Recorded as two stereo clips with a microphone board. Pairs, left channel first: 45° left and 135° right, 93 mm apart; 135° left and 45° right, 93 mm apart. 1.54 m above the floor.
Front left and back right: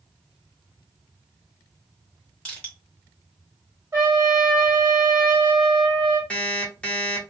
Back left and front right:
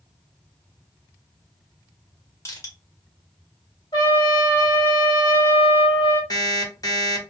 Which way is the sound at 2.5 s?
115° left.